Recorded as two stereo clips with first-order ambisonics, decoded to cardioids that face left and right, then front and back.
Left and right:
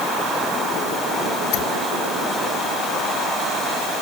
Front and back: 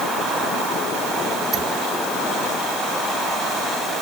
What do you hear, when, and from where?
1.5 s a squeak: 120° left